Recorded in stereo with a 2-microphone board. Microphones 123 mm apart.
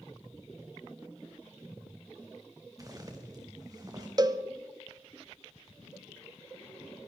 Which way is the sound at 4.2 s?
30° right (ahead or behind).